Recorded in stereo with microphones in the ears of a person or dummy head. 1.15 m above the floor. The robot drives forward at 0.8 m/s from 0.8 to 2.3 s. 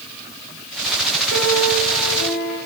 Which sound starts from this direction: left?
A piano, at 1.3 s.